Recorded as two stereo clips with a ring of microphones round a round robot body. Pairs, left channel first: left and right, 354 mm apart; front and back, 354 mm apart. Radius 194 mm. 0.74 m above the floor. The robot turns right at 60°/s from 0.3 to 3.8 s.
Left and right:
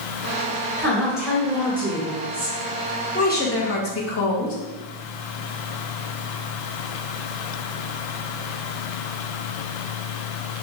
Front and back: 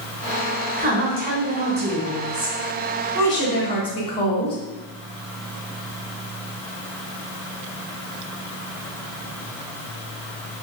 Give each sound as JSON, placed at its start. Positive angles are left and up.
{"t": 0.8, "sound": "a woman speaking", "azimuth_deg": 160, "distance_m": 1.0}
{"t": 3.1, "sound": "a woman speaking", "azimuth_deg": 30, "distance_m": 1.0}